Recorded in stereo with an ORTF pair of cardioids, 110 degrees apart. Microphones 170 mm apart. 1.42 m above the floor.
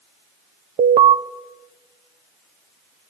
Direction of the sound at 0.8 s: 40° right.